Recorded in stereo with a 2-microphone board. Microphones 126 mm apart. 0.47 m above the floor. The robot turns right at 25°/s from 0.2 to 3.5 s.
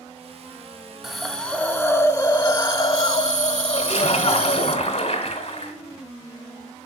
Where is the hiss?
5° right, 0.6 m; by 4.8 s 60° left, 0.6 m.